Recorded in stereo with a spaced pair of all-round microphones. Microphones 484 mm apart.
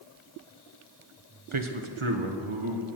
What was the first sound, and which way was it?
A man speaking, 75° right (ahead or behind).